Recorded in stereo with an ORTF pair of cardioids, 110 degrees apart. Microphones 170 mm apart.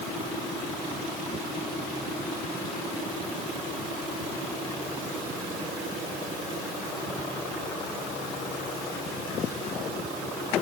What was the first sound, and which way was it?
Only background noise.